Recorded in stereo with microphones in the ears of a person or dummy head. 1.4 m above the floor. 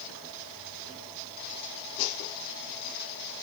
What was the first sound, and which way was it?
Only background noise.